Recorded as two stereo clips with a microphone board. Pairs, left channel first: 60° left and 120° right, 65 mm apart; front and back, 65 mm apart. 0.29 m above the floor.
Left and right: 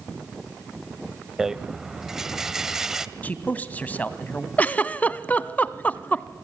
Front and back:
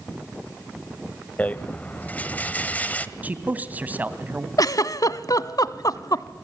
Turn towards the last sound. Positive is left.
turn(degrees=-5)